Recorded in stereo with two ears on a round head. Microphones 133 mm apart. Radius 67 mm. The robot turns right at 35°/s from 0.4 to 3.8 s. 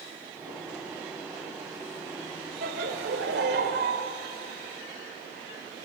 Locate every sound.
2.6 s laughter: 110° right, 2.5 m; by 4.0 s 70° right, 2.5 m